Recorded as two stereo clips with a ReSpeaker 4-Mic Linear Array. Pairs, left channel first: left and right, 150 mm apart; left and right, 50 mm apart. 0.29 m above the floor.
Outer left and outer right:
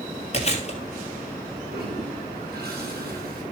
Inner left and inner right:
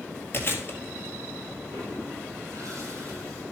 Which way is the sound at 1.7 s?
75° right (ahead or behind).